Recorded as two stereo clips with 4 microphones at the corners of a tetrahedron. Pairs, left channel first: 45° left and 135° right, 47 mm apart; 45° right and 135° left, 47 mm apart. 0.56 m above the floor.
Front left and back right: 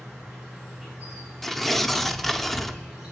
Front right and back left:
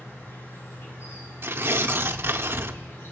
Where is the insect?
50° right, 6.5 m.